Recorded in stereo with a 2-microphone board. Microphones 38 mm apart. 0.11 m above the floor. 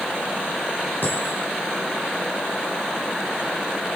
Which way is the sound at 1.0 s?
50° left (ahead or behind).